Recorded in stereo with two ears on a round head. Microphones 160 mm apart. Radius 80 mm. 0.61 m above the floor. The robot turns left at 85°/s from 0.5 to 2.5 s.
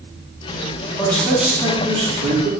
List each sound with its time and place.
1.0 s a man speaking: 30° left, 1.0 m; by 2.5 s 100° right, 1.0 m